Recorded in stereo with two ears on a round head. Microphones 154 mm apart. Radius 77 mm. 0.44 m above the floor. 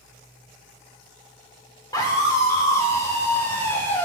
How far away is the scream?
About 1.5 m.